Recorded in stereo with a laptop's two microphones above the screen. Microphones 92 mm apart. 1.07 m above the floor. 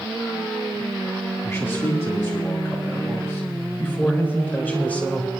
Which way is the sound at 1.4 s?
30° left (ahead or behind).